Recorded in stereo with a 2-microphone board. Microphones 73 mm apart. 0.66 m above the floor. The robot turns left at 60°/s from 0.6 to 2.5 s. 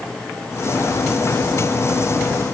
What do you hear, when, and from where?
Only background noise.